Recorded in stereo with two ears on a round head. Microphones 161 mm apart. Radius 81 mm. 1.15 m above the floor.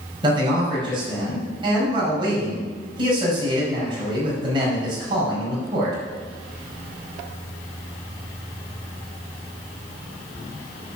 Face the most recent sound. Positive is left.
turn(degrees=-25)  # may be behind; listen again after turning